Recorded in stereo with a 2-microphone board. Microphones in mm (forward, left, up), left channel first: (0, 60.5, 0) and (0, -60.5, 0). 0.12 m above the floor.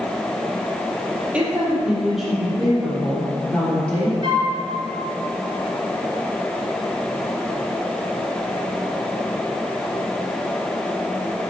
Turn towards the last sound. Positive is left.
turn(degrees=-40)  # may be behind; listen again after turning